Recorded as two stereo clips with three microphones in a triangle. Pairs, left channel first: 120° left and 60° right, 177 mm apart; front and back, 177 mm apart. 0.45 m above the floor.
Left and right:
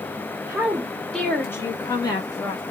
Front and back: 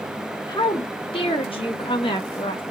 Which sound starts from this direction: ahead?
A woman speaking, at 0.5 s.